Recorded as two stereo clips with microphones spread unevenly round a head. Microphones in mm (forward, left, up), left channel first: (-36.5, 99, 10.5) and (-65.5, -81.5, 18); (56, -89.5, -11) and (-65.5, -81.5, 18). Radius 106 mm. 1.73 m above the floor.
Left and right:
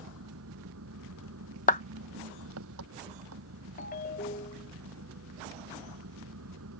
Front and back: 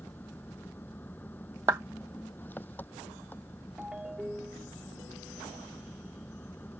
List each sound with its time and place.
0.0 s an engine running: 80° right
1.7 s a clap: 120° left
3.8 s a ringtone: 105° left